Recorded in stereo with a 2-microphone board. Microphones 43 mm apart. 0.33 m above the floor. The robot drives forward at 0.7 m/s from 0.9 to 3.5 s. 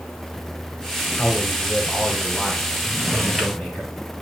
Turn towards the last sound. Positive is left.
turn(degrees=0)  # may be behind; listen again after turning